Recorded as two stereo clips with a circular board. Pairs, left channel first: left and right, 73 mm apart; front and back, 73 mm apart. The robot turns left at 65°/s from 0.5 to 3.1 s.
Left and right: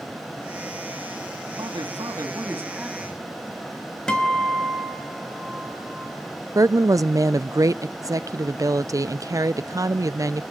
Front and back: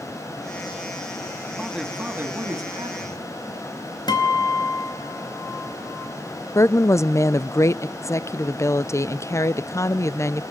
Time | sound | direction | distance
1.6 | a man speaking | 85° right | 2.5 m
4.1 | a guitar | 10° left | 4.5 m
6.5 | a woman speaking | 50° right | 0.5 m